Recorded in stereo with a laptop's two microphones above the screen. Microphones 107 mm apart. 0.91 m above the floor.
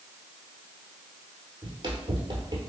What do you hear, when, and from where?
1.6 s running footsteps: 40° right (ahead or behind), 1.1 m